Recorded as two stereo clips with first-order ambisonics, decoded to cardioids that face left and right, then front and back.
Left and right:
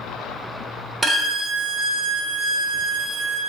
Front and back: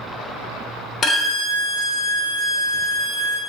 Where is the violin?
30° right, 0.9 m.